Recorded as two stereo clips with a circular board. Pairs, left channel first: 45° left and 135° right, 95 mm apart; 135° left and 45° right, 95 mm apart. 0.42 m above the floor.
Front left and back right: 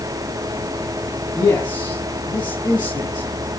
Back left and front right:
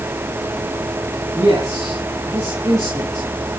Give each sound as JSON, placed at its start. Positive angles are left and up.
{"t": 1.4, "sound": "a man speaking", "azimuth_deg": 10, "distance_m": 3.5}